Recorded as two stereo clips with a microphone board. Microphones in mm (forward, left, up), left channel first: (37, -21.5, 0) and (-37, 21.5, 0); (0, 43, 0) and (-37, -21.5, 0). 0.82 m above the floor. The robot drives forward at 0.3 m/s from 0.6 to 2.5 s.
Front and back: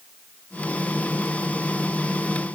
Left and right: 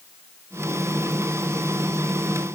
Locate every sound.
Only background noise.